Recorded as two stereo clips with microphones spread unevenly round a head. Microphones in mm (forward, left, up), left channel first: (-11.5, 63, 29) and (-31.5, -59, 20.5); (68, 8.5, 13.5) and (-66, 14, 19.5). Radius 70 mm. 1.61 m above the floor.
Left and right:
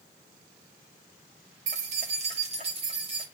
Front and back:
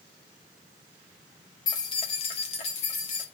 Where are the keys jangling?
65° right, 1.1 m; by 3.2 s 45° right, 1.9 m.